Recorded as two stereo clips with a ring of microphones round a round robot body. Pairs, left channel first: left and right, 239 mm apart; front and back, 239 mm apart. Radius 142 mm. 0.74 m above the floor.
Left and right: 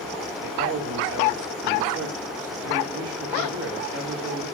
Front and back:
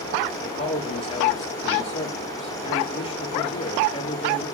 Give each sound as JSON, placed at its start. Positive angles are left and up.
{"t": 0.4, "sound": "a man speaking", "azimuth_deg": -65, "distance_m": 1.6}